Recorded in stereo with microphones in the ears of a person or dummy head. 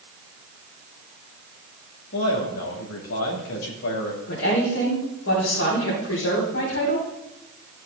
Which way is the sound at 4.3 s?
85° left.